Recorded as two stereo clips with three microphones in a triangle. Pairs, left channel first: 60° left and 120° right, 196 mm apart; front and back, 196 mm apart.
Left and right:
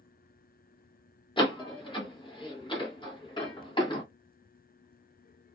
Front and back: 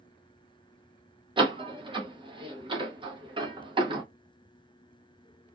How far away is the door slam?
About 0.8 m.